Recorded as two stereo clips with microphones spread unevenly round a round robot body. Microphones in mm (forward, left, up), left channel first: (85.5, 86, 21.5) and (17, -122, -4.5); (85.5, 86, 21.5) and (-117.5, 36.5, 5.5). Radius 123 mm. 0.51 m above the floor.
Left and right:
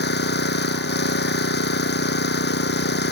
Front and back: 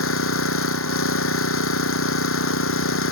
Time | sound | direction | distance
0.0 | an engine running | 30° left | ?